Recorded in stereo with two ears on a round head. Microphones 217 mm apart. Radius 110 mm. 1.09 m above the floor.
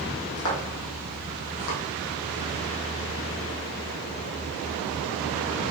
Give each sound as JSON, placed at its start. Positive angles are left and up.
{"t": 0.4, "sound": "footsteps", "side_deg": 70, "distance_m": 3.0}